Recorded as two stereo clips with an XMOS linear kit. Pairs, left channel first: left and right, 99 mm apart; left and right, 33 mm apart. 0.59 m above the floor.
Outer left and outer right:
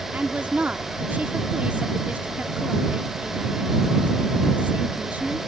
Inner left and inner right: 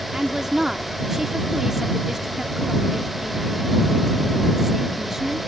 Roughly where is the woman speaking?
Centre.